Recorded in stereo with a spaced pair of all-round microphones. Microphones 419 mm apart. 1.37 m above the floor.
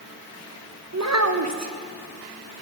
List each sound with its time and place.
0.9 s a child speaking: 40° right (ahead or behind), 0.8 m